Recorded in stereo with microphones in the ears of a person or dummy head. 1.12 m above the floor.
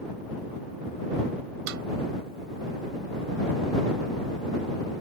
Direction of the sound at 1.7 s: 65° right (ahead or behind).